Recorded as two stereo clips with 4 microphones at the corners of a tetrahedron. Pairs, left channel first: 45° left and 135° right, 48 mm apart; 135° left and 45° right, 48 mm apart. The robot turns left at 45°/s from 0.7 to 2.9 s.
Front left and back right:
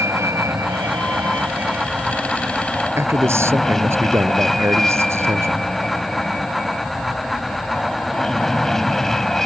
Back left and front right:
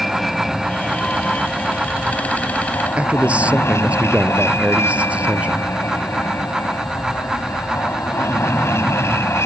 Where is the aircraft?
135° right; by 9.5 s 125° left.